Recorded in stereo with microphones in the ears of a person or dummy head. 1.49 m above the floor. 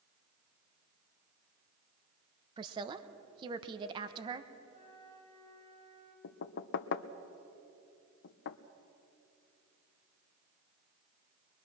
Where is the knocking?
65° left (ahead or behind), 0.8 m.